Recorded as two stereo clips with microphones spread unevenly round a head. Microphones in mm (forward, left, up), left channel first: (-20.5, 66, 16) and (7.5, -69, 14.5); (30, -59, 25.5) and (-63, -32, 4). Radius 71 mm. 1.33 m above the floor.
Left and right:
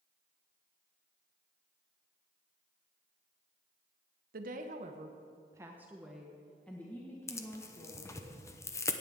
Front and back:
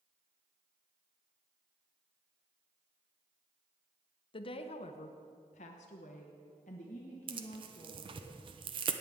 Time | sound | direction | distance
4.3 | a woman speaking | 50° right | 0.9 m
7.3 | tearing paper | 170° left | 0.8 m